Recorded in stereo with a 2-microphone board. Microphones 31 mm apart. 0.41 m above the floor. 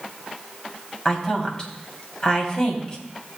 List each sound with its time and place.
1.1 s a woman speaking: 30° left (ahead or behind), 3 m